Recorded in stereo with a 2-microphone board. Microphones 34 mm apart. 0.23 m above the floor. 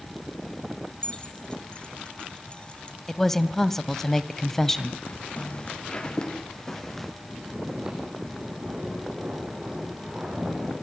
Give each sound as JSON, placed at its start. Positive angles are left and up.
{"t": 1.0, "sound": "keys jangling", "side_deg": 30, "distance_m": 1.2}
{"t": 3.1, "sound": "a woman speaking", "side_deg": 10, "distance_m": 0.9}
{"t": 5.0, "sound": "footsteps", "side_deg": 40, "distance_m": 4.5}
{"t": 7.2, "sound": "snoring", "side_deg": -15, "distance_m": 8.5}